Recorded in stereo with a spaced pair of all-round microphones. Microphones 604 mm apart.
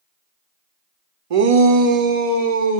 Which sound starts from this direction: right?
A shout, at 1.3 s.